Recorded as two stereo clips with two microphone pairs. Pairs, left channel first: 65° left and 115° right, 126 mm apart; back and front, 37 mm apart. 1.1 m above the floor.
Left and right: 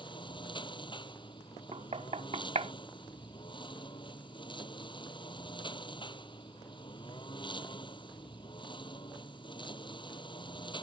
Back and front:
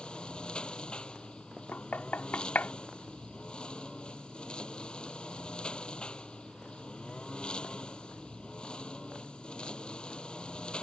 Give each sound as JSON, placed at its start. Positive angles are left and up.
{"t": 0.0, "sound": "a lawn mower", "azimuth_deg": 120}
{"t": 1.7, "sound": "knocking", "azimuth_deg": -145}